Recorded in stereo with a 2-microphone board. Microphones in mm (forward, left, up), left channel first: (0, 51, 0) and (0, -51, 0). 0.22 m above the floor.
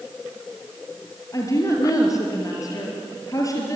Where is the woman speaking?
35° left (ahead or behind), 4.5 m.